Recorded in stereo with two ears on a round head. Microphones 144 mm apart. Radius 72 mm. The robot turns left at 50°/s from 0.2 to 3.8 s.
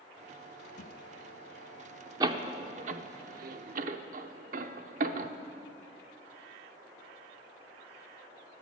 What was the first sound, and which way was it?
A thud, 50° left (ahead or behind).